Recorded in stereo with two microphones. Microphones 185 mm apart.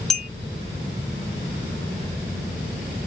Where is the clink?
5° left (ahead or behind), 1.6 m.